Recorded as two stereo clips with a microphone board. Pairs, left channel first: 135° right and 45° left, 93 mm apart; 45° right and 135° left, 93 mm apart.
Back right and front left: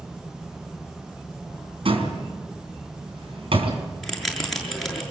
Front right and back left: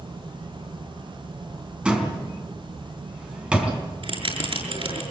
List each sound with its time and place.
1.9 s a door slam: 55° left, 3.5 m
4.0 s a bell: 135° left, 6.5 m